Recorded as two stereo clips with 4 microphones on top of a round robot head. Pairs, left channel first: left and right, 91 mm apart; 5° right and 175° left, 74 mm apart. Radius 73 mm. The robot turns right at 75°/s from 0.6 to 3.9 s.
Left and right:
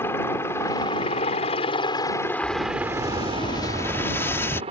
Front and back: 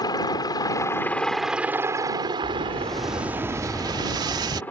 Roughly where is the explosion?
Ahead left.